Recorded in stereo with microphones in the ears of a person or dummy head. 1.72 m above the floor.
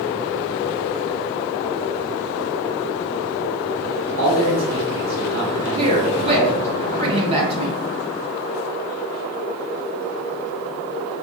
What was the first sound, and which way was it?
A man speaking, 35° right (ahead or behind).